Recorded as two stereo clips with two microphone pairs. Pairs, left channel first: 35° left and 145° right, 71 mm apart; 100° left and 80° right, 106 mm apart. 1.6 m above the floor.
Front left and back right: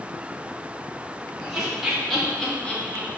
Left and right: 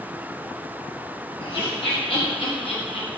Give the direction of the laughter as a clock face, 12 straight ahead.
7 o'clock.